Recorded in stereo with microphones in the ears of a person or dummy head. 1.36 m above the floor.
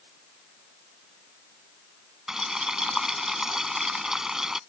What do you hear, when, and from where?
2.3 s boiling: 5° right (ahead or behind)